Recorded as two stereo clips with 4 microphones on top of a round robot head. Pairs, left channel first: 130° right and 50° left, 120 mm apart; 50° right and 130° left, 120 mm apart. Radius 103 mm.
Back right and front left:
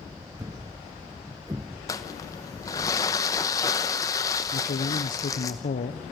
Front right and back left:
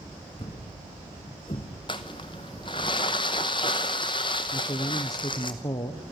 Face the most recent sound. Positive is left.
turn(degrees=-110)